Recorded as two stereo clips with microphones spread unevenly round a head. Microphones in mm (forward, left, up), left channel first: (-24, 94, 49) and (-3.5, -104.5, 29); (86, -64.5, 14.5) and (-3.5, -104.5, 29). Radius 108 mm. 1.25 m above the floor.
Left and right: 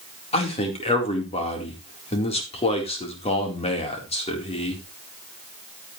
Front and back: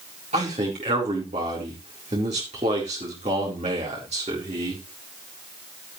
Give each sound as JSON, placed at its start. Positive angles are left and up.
{"t": 0.3, "sound": "a man speaking", "azimuth_deg": 160, "distance_m": 4.0}